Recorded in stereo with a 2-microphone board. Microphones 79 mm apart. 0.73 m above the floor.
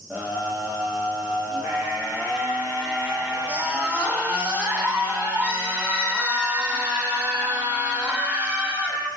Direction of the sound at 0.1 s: 20° right (ahead or behind).